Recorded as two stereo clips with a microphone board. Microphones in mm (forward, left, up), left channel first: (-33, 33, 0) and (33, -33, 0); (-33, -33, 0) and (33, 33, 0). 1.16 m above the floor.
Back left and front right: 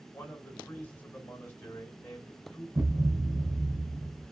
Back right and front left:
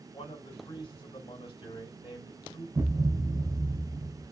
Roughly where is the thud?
Ahead.